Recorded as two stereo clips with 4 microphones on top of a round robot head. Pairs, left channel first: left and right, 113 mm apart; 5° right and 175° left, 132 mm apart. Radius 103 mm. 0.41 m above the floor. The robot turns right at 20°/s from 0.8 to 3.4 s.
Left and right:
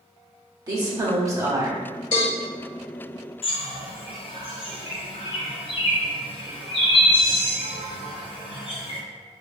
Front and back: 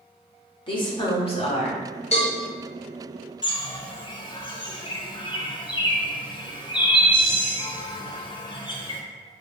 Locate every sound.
0.7 s a woman speaking: 45° right, 1.2 m; by 1.8 s 25° right, 1.2 m
2.1 s a cowbell: 35° left, 1.9 m; by 2.3 s 40° left, 1.9 m
3.4 s a bird: 50° left, 0.8 m